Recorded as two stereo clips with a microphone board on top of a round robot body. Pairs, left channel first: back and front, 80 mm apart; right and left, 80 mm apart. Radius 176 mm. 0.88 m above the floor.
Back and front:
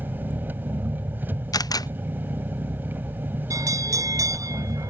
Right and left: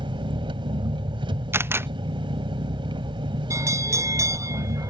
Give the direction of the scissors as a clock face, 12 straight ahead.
I don't hear scissors.